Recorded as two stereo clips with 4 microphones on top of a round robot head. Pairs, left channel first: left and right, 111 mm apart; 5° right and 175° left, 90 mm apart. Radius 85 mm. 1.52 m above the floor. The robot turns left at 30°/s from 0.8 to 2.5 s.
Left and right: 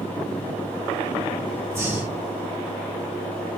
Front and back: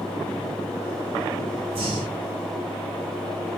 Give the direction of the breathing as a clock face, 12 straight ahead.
5 o'clock.